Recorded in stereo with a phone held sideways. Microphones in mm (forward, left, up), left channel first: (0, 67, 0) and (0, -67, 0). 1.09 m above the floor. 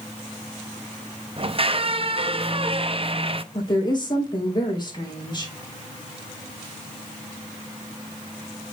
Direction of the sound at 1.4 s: 40° right (ahead or behind).